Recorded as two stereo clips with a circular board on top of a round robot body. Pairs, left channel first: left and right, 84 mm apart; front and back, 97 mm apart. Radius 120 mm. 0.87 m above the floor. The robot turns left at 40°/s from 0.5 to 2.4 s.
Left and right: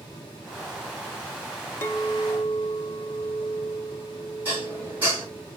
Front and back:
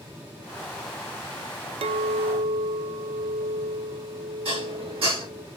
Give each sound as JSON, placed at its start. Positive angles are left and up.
{"t": 1.8, "sound": "a clink", "azimuth_deg": 150, "distance_m": 0.6}
{"t": 4.5, "sound": "dishes clattering", "azimuth_deg": -160, "distance_m": 5.5}